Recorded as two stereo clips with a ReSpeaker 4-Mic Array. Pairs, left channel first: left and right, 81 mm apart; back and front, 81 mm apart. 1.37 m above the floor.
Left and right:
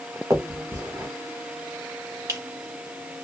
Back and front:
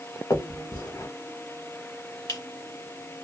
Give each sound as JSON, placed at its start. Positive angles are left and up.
{"t": 0.3, "sound": "a finger snap", "azimuth_deg": -135, "distance_m": 1.1}